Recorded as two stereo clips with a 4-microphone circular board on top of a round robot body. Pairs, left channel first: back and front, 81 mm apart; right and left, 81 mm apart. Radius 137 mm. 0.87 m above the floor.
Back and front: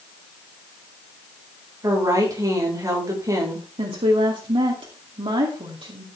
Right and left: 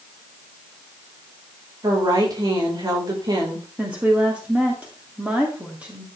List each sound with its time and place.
1.8 s a woman speaking: 50° left, 4.5 m
3.8 s a woman speaking: 15° left, 2.5 m